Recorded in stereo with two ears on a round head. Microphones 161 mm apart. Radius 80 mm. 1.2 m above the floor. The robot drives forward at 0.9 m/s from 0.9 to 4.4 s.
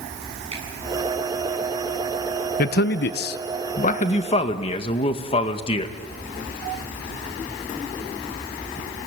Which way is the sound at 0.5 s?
35° right (ahead or behind).